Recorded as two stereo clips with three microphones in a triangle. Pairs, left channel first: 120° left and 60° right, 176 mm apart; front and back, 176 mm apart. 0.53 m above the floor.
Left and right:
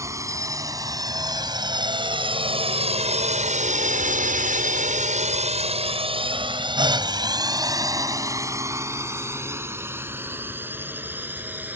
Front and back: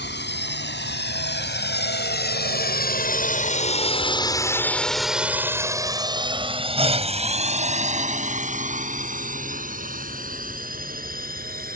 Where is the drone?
15° left; by 11.8 s 140° right.